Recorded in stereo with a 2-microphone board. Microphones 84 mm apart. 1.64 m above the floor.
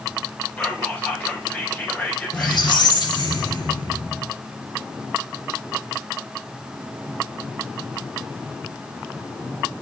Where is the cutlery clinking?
No cutlery clinking in this recording.